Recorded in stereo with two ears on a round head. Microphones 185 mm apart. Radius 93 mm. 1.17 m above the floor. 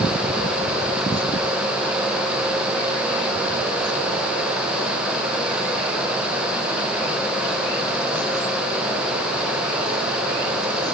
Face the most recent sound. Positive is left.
No sound to turn to.